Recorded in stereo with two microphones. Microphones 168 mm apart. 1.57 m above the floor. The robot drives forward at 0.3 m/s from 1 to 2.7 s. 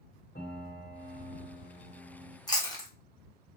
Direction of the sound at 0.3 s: 75° left (ahead or behind).